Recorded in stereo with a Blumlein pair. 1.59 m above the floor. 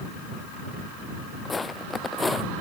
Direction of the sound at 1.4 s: 10° left.